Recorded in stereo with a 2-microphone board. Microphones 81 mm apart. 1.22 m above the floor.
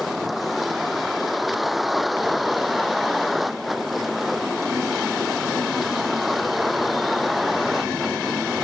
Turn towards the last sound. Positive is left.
turn(degrees=0)  # may be behind; listen again after turning